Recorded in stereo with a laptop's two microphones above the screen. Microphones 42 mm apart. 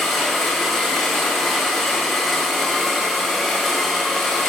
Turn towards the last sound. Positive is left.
turn(degrees=10)  # may be behind; listen again after turning